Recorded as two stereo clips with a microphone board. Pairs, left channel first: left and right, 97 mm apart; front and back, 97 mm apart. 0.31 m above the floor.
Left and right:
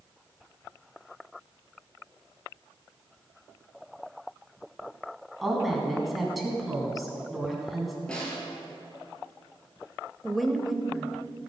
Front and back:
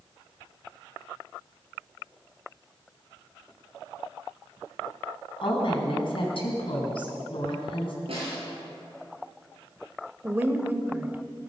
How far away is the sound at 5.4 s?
About 3 m.